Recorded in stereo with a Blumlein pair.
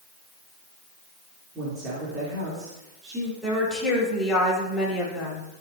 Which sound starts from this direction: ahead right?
A woman speaking, at 1.6 s.